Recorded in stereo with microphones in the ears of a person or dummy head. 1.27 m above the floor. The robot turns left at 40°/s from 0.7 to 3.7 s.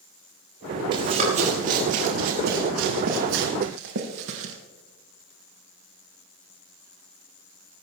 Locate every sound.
0.9 s running footsteps: 25° right (ahead or behind), 6.5 m; by 4.5 s 65° right (ahead or behind), 3 m